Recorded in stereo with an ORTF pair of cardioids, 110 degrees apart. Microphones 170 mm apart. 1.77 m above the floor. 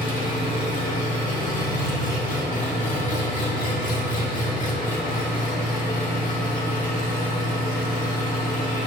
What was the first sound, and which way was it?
An engine running, 50° left.